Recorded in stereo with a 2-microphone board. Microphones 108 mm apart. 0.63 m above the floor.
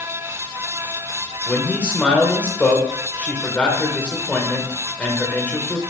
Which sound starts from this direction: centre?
A man speaking, at 1.5 s.